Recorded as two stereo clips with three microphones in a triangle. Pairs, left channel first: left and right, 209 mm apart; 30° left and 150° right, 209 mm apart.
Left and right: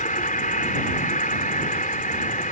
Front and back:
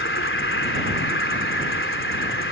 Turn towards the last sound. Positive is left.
turn(degrees=40)